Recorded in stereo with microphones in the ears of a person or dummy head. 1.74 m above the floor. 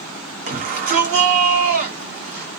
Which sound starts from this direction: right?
A shout, at 0.5 s.